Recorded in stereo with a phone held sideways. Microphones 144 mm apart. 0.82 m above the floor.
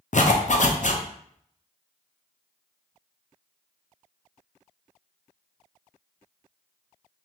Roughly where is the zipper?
Left.